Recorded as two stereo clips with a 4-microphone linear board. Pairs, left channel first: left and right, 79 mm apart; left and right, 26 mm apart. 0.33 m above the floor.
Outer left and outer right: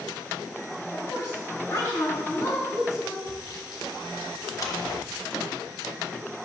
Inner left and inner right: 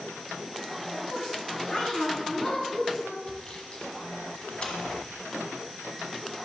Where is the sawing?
50° left (ahead or behind), 1.7 m.